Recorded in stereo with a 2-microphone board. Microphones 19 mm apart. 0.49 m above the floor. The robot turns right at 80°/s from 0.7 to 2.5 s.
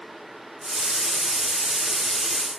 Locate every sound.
Only background noise.